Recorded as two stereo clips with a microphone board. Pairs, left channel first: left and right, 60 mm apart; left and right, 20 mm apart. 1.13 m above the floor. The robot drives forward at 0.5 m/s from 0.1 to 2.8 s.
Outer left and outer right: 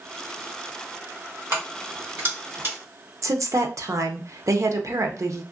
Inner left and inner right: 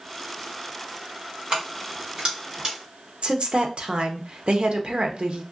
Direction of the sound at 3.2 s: 60° right (ahead or behind).